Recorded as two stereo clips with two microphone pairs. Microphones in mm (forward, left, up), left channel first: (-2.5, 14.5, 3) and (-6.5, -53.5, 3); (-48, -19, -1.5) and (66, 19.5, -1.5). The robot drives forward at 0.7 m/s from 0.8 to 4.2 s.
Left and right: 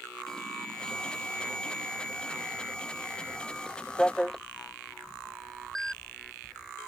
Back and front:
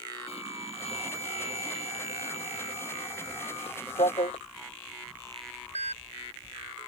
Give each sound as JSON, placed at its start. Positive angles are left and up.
{"t": 0.3, "sound": "an alarm", "azimuth_deg": 165}